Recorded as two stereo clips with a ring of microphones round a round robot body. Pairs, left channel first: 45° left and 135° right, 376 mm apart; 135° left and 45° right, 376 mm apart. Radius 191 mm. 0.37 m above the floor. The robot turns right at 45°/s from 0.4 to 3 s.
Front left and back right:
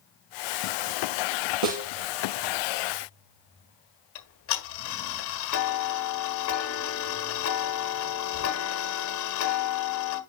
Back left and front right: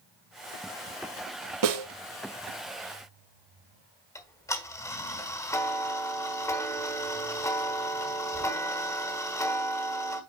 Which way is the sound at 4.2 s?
60° left.